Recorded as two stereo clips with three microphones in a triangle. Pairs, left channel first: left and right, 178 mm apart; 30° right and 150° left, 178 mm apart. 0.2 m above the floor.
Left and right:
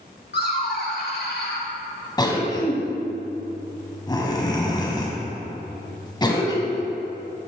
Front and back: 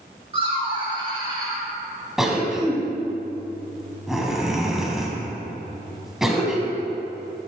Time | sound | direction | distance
0.3 | laughter | 95° left | 2.5 m
2.2 | a cough | 65° left | 1.4 m